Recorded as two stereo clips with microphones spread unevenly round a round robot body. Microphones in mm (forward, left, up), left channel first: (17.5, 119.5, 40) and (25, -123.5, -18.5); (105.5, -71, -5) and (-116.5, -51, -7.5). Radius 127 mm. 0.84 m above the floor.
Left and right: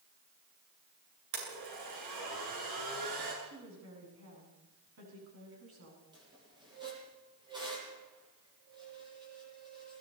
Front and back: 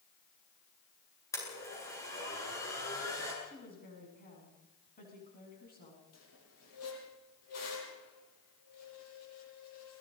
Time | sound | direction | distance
1.3 | a blender | 80° right | 9.5 m
3.4 | a woman speaking | 55° right | 7.5 m
6.1 | a squeak | 15° right | 7.5 m